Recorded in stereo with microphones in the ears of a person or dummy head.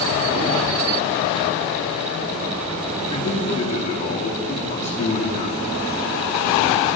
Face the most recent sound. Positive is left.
turn(degrees=45)  # may be behind; listen again after turning